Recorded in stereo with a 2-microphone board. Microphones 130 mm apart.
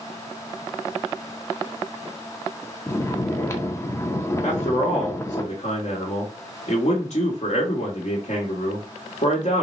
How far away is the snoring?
About 0.5 m.